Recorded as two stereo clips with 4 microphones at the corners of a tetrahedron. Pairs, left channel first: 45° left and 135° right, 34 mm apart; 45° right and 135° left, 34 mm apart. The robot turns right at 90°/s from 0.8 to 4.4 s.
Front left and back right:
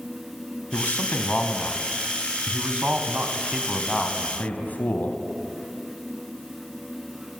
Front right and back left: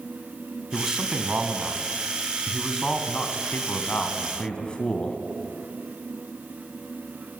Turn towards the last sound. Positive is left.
turn(degrees=10)